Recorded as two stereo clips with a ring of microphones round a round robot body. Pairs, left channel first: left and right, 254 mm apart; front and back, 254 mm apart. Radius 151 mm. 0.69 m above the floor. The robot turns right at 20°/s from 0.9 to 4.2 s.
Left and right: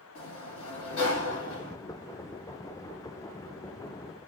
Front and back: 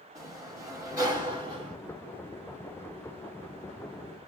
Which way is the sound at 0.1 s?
105° left.